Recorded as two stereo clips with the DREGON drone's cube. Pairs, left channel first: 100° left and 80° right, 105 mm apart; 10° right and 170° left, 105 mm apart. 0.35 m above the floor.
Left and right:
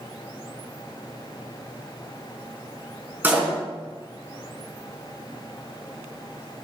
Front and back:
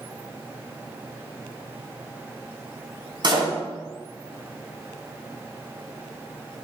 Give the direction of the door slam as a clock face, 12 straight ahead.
5 o'clock.